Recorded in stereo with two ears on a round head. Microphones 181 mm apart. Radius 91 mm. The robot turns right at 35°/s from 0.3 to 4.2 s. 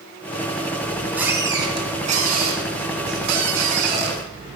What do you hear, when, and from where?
0.8 s a squeak: 175° left, 2 m; by 4.6 s 65° right, 2 m